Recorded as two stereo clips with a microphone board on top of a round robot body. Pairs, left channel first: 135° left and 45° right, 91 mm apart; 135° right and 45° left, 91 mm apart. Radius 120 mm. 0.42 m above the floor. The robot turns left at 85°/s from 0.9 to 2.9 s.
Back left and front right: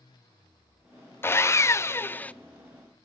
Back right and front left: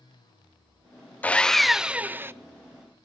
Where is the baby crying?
I don't hear a baby crying.